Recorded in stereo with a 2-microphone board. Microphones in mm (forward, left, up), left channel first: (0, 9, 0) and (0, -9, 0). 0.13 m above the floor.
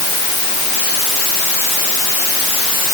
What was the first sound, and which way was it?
Only background noise.